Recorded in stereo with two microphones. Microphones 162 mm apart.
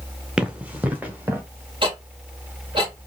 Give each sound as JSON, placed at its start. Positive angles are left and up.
{"t": 0.4, "sound": "running footsteps", "side_deg": -5, "distance_m": 1.6}
{"t": 1.8, "sound": "ticking", "side_deg": -35, "distance_m": 3.0}